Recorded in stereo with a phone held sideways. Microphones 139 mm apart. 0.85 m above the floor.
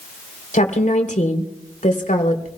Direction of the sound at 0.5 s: 65° left (ahead or behind).